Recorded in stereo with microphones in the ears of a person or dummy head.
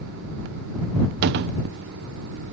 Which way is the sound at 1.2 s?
60° right (ahead or behind).